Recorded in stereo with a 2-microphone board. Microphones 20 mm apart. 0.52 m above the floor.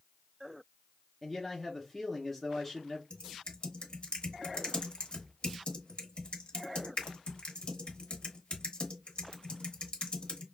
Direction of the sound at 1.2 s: 10° left (ahead or behind).